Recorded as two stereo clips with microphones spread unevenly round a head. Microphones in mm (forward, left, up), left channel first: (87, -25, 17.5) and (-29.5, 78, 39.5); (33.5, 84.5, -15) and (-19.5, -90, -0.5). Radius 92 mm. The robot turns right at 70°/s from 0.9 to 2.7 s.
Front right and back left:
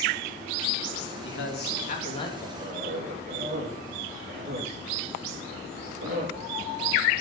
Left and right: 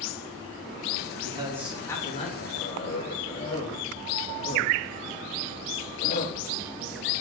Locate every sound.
1.2 s a man speaking: 50° right, 3 m; by 2.5 s 35° left, 3 m
2.6 s a cough: 95° left, 3.5 m; by 6.4 s 100° left, 3.5 m